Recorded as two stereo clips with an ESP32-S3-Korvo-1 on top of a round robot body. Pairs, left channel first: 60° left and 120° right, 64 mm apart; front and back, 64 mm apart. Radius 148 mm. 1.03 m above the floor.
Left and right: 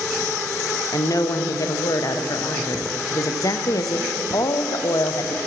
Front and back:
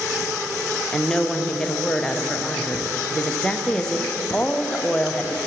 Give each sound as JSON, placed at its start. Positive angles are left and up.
{"t": 0.9, "sound": "a woman speaking", "azimuth_deg": 75, "distance_m": 0.5}